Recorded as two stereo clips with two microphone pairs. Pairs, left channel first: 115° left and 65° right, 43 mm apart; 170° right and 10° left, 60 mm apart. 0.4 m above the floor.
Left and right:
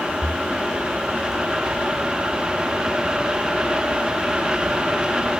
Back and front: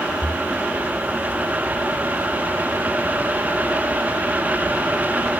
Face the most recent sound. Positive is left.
turn(degrees=-50)